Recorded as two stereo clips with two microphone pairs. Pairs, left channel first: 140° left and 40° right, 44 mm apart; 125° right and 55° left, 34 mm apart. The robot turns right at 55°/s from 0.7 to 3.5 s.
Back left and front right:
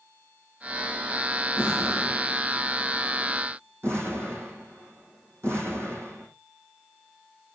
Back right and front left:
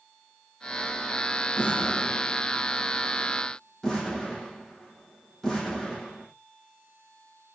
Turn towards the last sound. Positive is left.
turn(degrees=-45)